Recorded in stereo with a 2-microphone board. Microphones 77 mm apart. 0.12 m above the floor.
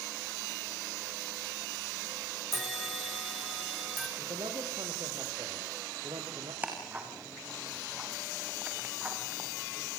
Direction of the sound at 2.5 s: 5° right (ahead or behind).